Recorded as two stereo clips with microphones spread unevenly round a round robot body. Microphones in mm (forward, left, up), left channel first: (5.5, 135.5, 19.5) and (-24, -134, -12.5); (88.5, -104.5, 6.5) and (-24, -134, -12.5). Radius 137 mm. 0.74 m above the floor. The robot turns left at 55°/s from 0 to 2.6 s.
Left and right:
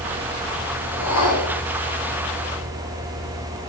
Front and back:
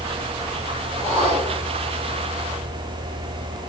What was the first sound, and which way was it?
A whoosh, 130° left.